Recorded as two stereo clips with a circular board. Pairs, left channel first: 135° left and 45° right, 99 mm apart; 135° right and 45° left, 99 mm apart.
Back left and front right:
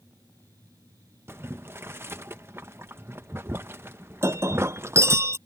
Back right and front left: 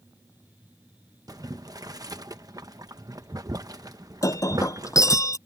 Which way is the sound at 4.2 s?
95° right.